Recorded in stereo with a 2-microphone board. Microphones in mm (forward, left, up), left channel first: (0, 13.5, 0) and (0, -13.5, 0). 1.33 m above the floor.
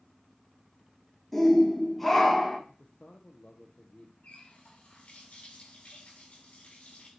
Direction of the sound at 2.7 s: 45° left (ahead or behind).